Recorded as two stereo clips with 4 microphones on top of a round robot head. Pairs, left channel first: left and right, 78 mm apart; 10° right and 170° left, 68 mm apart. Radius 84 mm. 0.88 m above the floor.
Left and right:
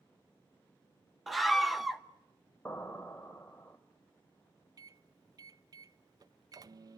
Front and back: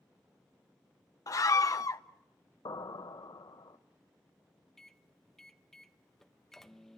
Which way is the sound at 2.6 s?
10° left.